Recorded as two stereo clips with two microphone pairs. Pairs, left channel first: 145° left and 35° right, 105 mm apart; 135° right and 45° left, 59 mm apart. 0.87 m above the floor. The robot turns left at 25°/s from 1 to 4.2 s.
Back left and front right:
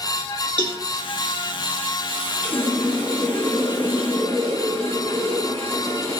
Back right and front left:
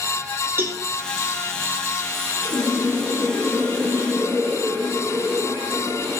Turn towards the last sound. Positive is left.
turn(degrees=-160)